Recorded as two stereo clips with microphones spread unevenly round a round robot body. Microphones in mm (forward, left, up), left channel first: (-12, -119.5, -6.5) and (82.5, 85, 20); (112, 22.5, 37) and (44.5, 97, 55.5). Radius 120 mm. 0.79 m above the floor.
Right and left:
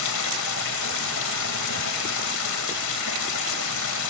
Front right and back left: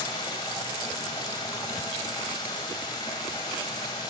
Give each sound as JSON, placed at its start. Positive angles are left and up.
{"t": 0.0, "sound": "running water", "azimuth_deg": -120, "distance_m": 1.4}